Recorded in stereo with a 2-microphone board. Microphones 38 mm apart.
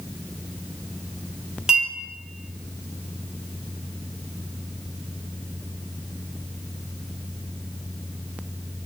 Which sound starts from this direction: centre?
A clink, at 1.7 s.